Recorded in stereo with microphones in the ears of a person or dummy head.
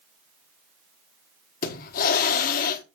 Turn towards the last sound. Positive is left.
turn(degrees=50)  # may be behind; listen again after turning